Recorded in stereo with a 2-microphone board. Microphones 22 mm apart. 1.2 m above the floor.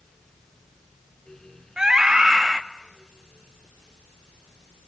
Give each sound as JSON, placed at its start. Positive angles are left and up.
{"t": 1.8, "sound": "a scream", "side_deg": -30, "distance_m": 2.0}